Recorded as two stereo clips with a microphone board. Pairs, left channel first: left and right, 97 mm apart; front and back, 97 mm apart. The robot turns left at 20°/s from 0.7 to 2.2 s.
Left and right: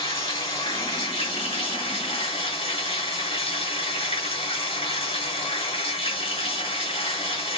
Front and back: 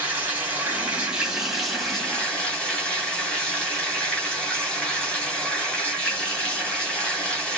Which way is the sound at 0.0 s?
110° left.